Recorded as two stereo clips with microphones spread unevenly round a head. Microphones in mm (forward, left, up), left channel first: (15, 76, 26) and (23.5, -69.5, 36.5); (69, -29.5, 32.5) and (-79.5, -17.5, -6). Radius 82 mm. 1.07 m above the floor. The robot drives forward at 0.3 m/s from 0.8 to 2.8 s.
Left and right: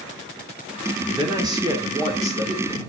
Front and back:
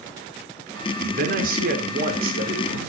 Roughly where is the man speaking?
Behind right.